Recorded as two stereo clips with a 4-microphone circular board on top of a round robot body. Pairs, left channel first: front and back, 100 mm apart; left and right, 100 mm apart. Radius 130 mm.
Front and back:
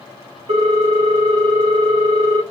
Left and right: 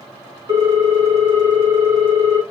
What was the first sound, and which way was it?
A ringtone, 145° right.